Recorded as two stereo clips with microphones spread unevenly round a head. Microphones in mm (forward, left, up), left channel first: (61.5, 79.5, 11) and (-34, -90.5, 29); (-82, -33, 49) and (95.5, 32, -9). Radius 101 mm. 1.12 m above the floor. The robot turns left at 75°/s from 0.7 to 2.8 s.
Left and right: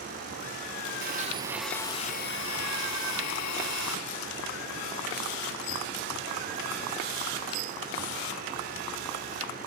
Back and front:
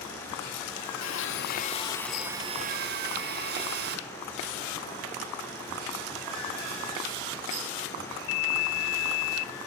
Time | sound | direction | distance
1.0 | a blender | 160° right | 1.1 m